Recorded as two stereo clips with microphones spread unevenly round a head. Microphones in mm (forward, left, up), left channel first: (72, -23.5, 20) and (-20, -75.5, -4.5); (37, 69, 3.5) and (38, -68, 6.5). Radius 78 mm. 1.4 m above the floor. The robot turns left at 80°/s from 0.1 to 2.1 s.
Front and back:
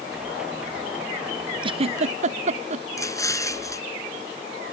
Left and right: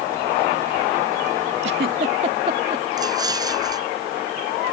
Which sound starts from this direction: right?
A giggle, at 1.6 s.